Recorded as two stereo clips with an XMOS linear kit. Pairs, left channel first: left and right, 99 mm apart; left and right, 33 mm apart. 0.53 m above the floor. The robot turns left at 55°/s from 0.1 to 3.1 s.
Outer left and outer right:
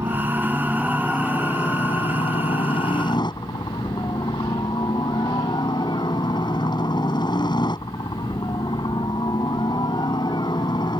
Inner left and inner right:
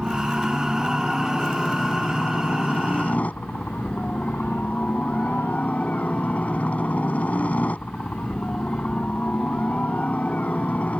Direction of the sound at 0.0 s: 140° right.